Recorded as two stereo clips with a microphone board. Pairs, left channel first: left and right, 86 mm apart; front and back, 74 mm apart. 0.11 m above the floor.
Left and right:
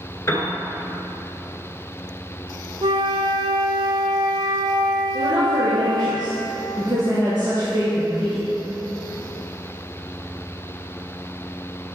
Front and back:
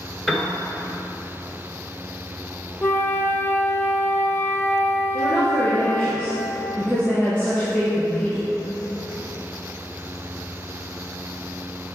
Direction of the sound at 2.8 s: 70° right.